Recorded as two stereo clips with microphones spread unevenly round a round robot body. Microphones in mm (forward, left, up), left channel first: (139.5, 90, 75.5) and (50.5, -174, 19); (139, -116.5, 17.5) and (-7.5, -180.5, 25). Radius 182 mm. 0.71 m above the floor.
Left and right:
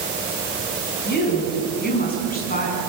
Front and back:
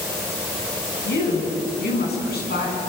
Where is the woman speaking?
15° left, 7 m; by 2.8 s 10° left, 8 m.